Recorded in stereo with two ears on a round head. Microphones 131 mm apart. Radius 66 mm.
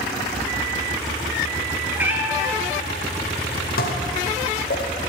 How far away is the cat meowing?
About 1.1 m.